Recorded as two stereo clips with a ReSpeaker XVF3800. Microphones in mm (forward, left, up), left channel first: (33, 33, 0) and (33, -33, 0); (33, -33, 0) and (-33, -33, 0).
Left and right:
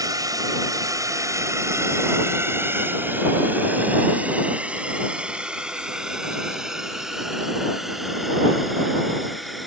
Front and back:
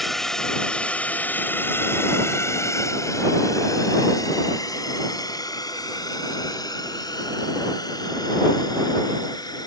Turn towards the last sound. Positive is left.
turn(degrees=0)